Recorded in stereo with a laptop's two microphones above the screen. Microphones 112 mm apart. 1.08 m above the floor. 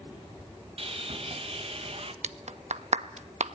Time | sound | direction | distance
0.8 | sawing | 60° right (ahead or behind) | 1.2 m
2.2 | a clap | 80° right | 0.7 m